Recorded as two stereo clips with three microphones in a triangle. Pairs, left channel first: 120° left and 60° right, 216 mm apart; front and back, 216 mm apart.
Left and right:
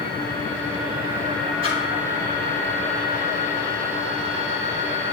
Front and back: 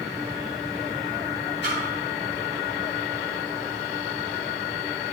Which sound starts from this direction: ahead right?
A splash, at 1.6 s.